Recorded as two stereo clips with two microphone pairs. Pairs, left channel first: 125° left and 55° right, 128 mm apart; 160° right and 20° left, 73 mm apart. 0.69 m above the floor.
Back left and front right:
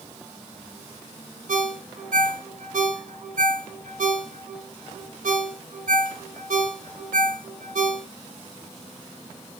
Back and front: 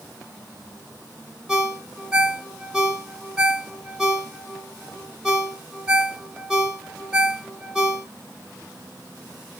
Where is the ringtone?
65° right, 1.1 m.